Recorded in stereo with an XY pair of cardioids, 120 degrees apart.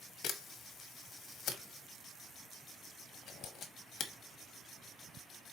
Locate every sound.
0.2 s a camera shutter: 60° left, 1.1 m